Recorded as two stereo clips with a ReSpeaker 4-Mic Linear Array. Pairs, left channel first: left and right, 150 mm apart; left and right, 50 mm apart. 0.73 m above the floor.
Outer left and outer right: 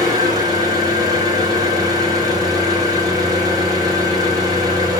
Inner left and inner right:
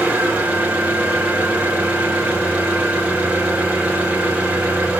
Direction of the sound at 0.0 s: 25° right (ahead or behind).